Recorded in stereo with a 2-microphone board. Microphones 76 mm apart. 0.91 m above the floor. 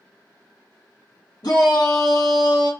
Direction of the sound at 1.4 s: 65° left (ahead or behind).